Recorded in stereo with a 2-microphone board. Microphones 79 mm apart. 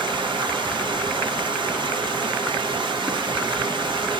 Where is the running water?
75° right (ahead or behind), 0.9 m.